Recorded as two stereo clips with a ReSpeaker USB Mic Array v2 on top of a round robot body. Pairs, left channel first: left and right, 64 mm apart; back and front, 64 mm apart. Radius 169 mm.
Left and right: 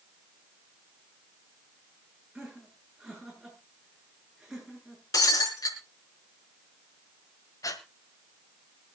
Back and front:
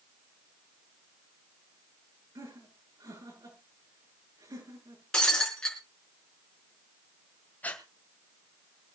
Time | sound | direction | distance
2.4 | laughter | 5° right | 9 m
5.1 | breaking glass | 100° left | 4 m
7.6 | breathing | 115° left | 2 m